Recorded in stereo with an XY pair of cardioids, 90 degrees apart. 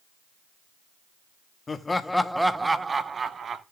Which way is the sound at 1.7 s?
35° left.